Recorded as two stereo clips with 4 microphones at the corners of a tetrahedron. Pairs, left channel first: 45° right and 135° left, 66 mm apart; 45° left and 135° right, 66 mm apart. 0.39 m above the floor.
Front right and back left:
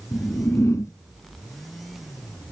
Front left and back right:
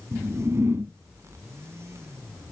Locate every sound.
0.1 s a whoosh: 85° right, 1.4 m